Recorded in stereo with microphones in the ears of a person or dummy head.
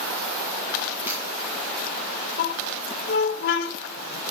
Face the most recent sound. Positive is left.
turn(degrees=50)  # may be behind; listen again after turning